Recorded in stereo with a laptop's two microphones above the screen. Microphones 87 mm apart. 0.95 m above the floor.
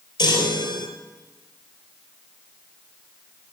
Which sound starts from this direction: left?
A chime, at 0.2 s.